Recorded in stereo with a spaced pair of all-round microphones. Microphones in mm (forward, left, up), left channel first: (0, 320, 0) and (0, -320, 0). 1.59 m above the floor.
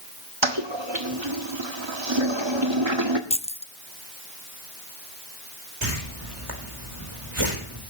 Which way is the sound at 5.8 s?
50° right (ahead or behind).